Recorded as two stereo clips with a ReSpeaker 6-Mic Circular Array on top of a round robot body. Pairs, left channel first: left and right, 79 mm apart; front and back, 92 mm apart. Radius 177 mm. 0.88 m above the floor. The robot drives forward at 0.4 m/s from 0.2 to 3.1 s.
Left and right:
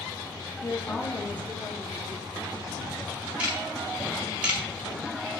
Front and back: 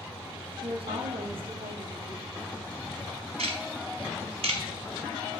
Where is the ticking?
165° right, 1.4 m.